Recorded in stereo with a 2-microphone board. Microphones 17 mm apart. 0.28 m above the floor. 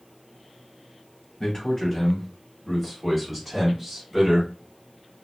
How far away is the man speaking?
About 1.7 m.